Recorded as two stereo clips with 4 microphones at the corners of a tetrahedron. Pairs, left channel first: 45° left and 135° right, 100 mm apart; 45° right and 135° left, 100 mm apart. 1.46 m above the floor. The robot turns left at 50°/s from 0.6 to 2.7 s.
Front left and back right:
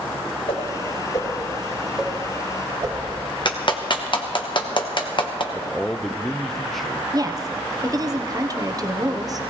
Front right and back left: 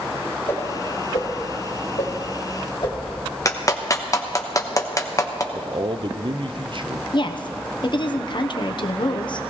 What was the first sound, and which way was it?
A whoosh, 20° left.